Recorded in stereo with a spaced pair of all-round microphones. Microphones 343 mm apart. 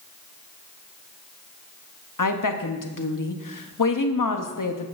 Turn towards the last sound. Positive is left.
turn(degrees=65)  # may be behind; listen again after turning